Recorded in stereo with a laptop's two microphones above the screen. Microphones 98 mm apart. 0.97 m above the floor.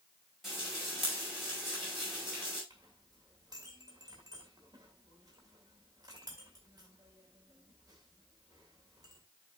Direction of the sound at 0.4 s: Centre (ahead or behind).